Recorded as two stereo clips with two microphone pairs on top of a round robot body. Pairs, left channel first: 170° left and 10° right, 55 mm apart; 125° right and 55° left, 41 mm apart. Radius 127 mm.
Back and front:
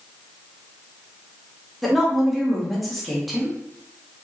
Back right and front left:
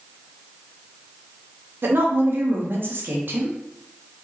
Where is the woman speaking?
80° left, 1.1 m.